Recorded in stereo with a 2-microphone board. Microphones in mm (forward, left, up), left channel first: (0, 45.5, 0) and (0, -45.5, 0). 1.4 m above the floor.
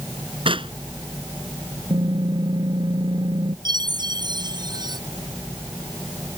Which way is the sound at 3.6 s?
50° right (ahead or behind).